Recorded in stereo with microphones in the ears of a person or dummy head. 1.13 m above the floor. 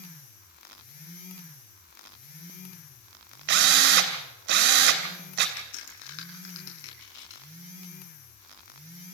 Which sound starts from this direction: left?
A crack, at 5.6 s.